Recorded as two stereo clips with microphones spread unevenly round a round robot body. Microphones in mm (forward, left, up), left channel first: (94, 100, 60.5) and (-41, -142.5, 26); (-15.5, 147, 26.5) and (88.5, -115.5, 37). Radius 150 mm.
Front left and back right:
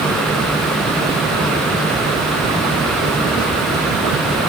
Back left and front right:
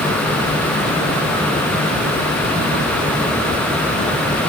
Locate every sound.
Only background noise.